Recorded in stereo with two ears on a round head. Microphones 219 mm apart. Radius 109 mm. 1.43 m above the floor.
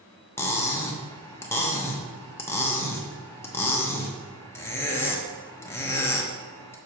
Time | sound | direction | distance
0.4 | cutlery clinking | 10° left (ahead or behind) | 1.0 m